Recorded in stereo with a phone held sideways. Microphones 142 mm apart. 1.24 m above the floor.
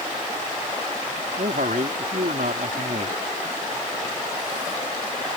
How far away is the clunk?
No clunk in this recording.